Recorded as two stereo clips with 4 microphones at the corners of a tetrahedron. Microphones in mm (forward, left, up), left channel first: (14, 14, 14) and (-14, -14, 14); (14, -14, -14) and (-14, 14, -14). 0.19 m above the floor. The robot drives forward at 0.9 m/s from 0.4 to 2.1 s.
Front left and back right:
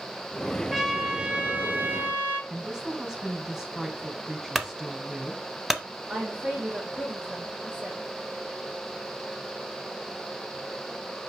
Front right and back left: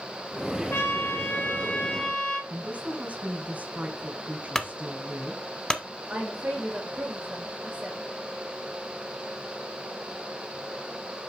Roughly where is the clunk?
Ahead right.